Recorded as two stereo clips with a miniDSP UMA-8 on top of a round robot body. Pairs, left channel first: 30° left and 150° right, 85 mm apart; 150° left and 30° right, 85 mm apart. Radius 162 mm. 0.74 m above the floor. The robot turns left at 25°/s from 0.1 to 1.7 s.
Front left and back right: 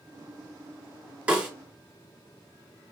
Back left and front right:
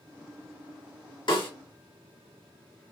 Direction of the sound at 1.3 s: 135° left.